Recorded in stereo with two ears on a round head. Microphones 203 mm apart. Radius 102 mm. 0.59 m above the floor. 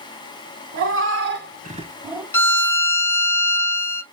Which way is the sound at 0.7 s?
60° right (ahead or behind).